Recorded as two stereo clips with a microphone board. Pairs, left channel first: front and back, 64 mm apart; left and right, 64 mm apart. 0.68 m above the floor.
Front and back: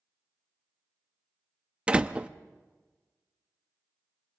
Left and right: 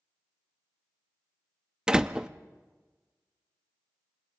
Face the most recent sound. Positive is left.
turn(degrees=-140)